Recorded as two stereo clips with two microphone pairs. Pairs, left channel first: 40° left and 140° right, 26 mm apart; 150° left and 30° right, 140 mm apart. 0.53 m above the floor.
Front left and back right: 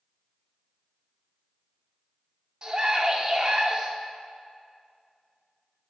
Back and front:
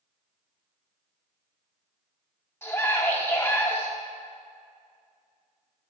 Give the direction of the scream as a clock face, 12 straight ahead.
5 o'clock.